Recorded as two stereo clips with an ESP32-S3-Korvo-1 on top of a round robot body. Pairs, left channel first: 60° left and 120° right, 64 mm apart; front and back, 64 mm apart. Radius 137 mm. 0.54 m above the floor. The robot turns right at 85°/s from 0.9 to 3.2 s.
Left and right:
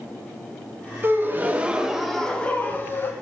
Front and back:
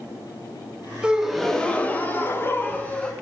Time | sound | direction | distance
1.0 | a gasp | 115° right | 1.1 m